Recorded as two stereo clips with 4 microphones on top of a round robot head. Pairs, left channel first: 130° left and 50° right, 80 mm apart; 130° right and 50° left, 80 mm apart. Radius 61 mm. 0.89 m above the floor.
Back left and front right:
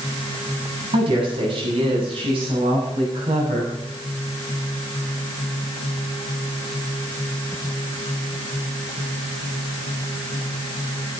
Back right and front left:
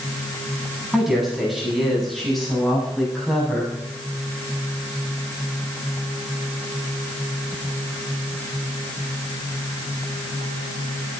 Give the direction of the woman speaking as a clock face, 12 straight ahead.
1 o'clock.